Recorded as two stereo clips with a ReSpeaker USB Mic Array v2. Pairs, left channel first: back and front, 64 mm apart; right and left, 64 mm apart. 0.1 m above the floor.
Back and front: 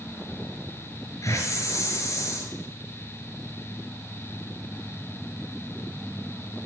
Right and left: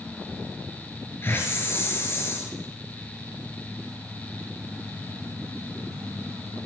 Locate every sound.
1.2 s a hiss: 140° right, 6.5 m